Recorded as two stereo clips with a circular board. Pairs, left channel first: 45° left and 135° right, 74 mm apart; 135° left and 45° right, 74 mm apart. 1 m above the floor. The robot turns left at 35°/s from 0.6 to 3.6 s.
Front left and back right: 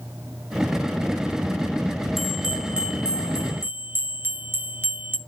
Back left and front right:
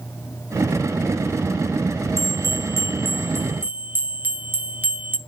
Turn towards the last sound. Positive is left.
turn(degrees=-95)